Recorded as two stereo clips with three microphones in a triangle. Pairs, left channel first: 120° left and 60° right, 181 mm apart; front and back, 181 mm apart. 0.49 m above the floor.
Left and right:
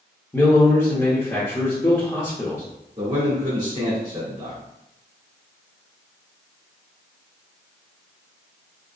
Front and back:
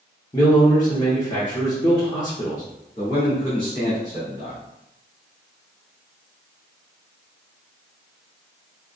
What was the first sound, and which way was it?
A man speaking, 55° left.